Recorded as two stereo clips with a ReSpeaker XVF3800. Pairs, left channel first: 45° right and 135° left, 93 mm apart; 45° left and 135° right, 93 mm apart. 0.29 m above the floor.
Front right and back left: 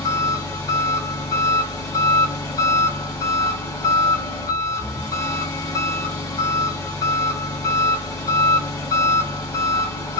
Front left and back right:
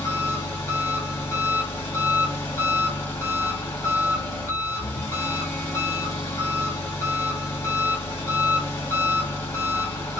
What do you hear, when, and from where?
0.0 s an engine running: straight ahead, 1.6 m